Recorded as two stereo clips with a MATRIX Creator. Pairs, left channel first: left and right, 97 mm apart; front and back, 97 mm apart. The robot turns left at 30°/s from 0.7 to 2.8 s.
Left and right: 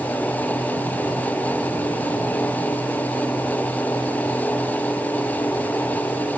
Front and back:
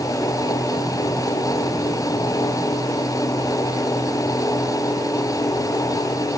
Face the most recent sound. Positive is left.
No sound to turn to.